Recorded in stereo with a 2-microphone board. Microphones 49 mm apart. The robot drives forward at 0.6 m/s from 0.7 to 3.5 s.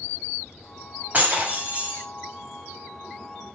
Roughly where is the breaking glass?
Right.